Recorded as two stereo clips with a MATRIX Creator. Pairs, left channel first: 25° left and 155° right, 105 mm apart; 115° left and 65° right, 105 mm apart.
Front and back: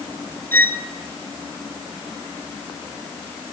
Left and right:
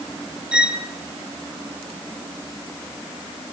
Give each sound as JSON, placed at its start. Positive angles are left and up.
{"t": 0.5, "sound": "a violin", "azimuth_deg": 0, "distance_m": 1.1}